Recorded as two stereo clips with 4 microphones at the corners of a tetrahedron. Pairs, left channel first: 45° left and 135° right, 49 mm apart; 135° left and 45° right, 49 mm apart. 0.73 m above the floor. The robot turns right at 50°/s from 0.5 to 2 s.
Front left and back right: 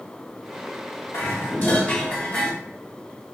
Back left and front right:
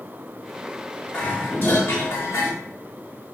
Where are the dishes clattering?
65° left, 1.0 m; by 2.5 s 110° left, 1.0 m.